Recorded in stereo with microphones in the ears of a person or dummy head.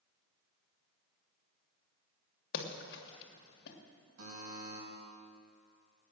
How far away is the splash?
About 1.9 m.